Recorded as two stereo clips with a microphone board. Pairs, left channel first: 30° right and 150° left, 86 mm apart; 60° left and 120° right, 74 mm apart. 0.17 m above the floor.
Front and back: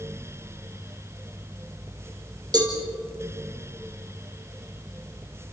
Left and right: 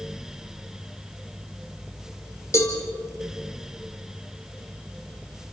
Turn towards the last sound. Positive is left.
turn(degrees=110)